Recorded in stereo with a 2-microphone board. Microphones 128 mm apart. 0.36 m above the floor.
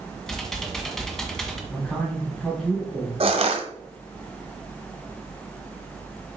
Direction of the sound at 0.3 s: 5° left (ahead or behind).